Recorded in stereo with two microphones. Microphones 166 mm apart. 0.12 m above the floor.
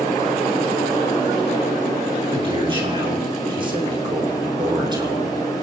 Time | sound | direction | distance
2.3 | a man speaking | 30° right (ahead or behind) | 8 m